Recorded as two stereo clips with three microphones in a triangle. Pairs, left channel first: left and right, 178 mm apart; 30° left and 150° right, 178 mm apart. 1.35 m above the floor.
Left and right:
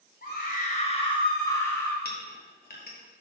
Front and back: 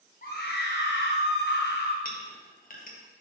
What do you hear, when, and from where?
0.2 s a scream: 65° left, 0.9 m; by 1.9 s 10° left, 1.3 m
2.0 s a clink: 65° left, 1.1 m